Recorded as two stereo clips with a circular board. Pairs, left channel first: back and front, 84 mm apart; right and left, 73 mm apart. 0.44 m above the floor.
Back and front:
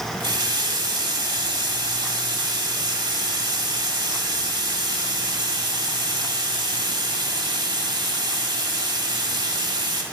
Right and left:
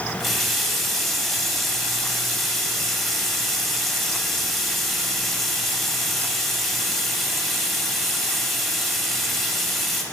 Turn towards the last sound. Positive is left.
turn(degrees=0)